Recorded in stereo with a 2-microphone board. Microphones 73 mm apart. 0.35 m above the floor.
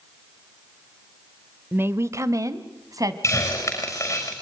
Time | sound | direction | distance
1.7 | a woman speaking | 30° right (ahead or behind) | 0.9 m
3.2 | a hiss | 40° left (ahead or behind) | 6.5 m